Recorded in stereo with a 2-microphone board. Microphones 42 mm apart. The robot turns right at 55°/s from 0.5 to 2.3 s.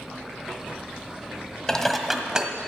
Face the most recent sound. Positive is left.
turn(degrees=-160)